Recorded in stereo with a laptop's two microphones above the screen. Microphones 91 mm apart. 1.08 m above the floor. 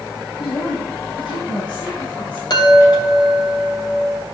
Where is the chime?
55° left (ahead or behind), 2.5 m.